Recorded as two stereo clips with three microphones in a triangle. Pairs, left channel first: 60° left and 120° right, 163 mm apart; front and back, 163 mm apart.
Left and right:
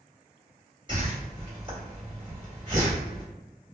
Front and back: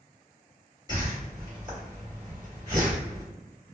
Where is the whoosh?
145° right, 1.5 m.